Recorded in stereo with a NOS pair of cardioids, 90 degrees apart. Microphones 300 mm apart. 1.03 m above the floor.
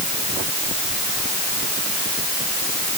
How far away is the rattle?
I don't hear a rattle.